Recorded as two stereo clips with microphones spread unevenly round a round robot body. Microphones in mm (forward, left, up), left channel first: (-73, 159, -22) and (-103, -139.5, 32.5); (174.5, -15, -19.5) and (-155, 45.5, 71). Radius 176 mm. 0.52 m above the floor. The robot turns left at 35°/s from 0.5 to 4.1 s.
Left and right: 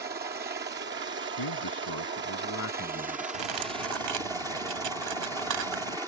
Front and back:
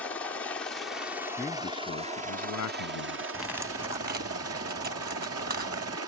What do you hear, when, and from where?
0.0 s a helicopter: 55° right; by 6.1 s straight behind
1.4 s a man speaking: 75° left; by 3.2 s 10° left
3.3 s cutlery clinking: 95° right; by 6.0 s 125° right